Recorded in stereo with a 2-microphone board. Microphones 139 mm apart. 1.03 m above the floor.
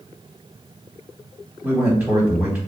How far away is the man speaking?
About 2 m.